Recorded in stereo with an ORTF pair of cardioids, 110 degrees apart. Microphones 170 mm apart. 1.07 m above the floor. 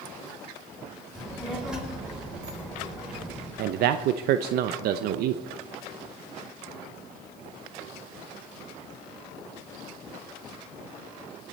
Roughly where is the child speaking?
Ahead.